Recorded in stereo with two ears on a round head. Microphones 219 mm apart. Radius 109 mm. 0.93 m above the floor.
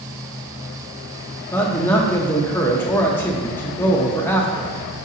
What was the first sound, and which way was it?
A man speaking, 10° left (ahead or behind).